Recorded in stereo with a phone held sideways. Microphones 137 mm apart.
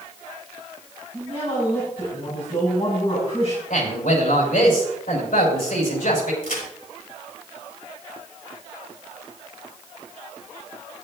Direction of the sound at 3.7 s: 85° left.